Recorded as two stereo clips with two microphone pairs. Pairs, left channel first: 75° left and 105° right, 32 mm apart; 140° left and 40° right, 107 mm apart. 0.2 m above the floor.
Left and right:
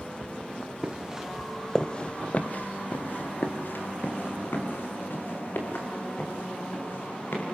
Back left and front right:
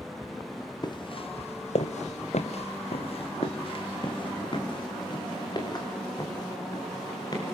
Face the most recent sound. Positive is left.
turn(degrees=85)